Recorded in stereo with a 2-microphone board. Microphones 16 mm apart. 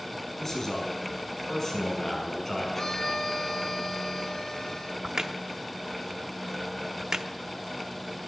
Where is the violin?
20° left (ahead or behind), 1.9 m.